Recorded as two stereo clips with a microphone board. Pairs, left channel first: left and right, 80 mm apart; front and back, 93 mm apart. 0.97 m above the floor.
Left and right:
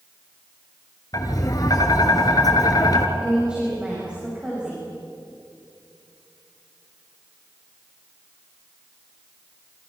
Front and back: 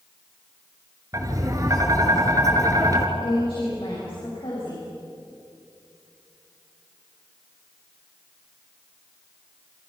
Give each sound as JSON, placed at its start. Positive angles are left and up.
{"t": 1.1, "sound": "tapping", "azimuth_deg": 130, "distance_m": 2.5}
{"t": 3.2, "sound": "a woman speaking", "azimuth_deg": -15, "distance_m": 6.5}